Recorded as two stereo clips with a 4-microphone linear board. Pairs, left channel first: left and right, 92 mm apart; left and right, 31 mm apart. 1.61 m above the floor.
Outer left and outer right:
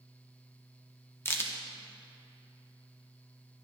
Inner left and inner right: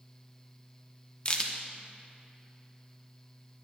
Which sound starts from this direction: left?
A crack, at 1.2 s.